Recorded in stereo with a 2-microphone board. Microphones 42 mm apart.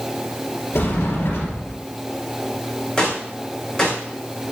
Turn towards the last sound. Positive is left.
turn(degrees=20)  # may be behind; listen again after turning